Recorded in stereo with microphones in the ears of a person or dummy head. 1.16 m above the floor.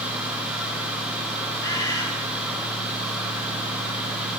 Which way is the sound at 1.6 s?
25° left (ahead or behind).